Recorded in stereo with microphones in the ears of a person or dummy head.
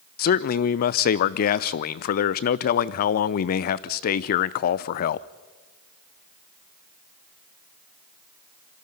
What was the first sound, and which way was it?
A man speaking, 40° left (ahead or behind).